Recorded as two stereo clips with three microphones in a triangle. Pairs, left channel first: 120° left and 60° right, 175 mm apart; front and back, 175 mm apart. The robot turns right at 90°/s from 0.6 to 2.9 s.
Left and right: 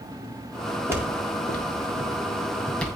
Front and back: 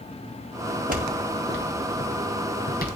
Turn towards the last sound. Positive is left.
turn(degrees=45)